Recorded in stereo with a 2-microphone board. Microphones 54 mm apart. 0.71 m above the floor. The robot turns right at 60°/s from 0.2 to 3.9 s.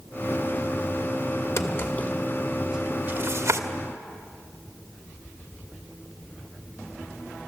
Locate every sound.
1.6 s a drawer: 55° left (ahead or behind), 1.4 m; by 3.6 s 70° right (ahead or behind), 1.4 m